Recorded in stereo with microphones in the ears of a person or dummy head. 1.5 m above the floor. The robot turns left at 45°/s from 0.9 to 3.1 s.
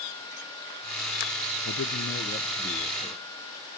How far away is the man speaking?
About 0.9 m.